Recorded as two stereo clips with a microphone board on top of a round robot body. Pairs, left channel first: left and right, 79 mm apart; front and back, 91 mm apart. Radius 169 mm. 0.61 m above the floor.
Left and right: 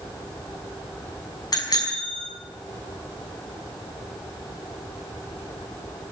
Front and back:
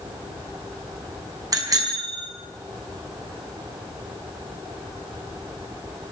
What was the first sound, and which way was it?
A bicycle bell, 130° left.